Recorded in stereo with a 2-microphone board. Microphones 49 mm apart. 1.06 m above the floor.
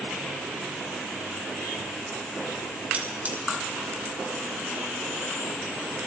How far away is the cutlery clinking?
About 2.5 m.